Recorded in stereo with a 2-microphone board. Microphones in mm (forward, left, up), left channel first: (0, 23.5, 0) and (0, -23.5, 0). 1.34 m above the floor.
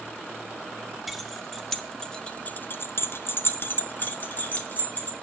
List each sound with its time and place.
1.1 s keys jangling: 5° right (ahead or behind), 1.9 m; by 5.1 s 35° left (ahead or behind), 3 m